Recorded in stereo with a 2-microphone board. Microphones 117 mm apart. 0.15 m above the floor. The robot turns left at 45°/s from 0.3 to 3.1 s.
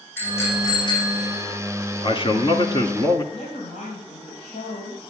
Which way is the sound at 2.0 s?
95° left.